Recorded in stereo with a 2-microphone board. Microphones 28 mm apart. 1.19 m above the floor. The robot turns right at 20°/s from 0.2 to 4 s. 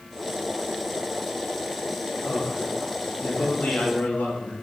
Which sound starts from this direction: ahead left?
A man speaking, at 2.2 s.